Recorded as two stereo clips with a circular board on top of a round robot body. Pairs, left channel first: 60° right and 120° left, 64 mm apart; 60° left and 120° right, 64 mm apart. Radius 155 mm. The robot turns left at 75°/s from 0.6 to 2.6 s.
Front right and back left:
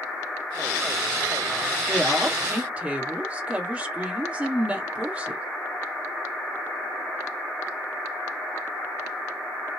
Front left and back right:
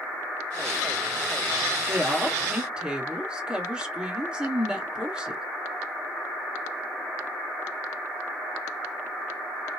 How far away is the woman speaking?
About 1.6 m.